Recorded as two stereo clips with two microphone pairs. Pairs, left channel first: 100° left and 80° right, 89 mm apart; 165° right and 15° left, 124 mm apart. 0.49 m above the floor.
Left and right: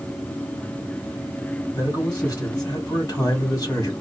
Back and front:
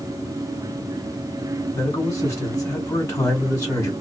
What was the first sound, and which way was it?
A man speaking, 135° left.